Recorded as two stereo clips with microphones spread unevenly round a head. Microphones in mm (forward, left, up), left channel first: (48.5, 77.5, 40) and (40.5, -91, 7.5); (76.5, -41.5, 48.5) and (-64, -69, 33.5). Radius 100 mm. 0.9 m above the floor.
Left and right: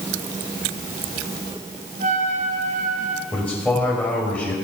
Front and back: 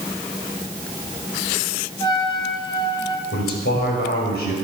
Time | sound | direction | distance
2.0 | a trumpet | 50° right | 1.9 m
3.3 | a man speaking | 5° left | 5.5 m